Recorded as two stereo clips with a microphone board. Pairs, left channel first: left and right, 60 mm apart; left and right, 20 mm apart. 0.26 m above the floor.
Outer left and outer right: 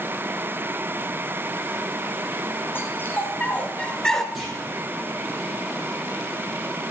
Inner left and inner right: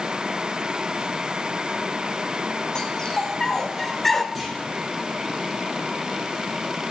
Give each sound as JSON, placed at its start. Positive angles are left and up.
{"t": 2.8, "sound": "a dog barking", "side_deg": 35, "distance_m": 2.5}
{"t": 4.3, "sound": "a clunk", "side_deg": -5, "distance_m": 9.0}